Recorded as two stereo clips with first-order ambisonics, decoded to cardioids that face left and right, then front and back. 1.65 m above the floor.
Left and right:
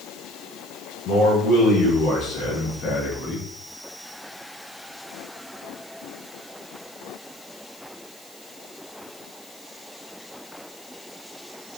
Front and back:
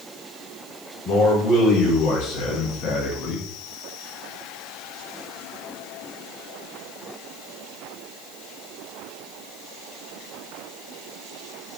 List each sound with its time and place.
1.1 s a man speaking: 35° left, 1.9 m; by 3.5 s 20° left, 0.8 m